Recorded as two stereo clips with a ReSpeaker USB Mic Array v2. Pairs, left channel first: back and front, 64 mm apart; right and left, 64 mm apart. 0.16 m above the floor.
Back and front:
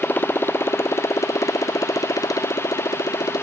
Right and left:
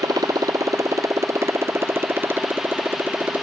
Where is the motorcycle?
115° left; by 3.4 s 155° left.